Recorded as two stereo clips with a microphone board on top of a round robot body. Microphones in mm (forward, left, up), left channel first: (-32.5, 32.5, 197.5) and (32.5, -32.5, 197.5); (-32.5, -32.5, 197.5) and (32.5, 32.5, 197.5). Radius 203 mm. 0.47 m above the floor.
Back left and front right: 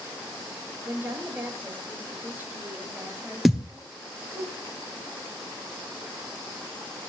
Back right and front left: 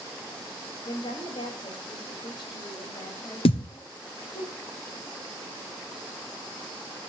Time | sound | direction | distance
0.8 | a woman speaking | 115° right | 5 m
3.5 | a thud | 135° right | 1.5 m